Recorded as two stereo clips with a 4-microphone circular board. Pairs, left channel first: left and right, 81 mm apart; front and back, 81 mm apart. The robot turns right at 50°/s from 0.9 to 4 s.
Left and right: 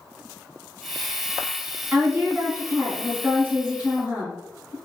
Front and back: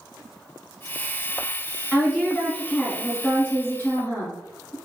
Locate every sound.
1.9 s a woman speaking: 125° right, 1.3 m; by 4.8 s 20° right, 1.3 m